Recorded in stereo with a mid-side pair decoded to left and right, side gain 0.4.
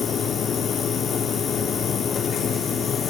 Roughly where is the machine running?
Ahead left.